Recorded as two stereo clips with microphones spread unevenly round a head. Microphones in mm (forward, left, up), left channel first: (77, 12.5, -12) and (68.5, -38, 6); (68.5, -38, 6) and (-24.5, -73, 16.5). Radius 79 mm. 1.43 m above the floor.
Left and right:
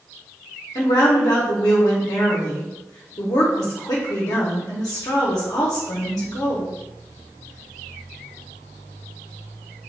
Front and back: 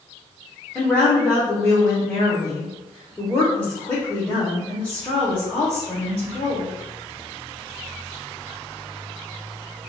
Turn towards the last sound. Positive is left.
turn(degrees=105)